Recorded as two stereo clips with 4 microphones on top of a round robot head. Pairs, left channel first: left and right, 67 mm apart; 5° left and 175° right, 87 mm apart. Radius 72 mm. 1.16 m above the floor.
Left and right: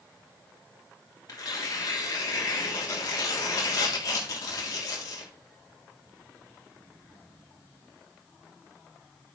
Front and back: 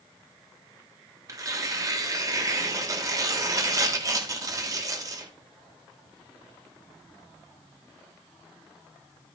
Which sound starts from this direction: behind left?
Tearing paper, at 1.3 s.